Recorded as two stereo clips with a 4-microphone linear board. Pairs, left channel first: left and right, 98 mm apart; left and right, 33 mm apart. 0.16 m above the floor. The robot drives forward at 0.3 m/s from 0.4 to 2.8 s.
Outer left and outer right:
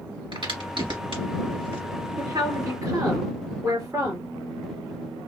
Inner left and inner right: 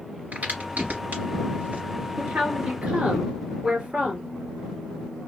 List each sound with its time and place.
0.3 s a crack: 60° right (ahead or behind), 3 m
2.2 s a woman speaking: 40° right (ahead or behind), 2 m; by 4.3 s 35° right (ahead or behind), 2.5 m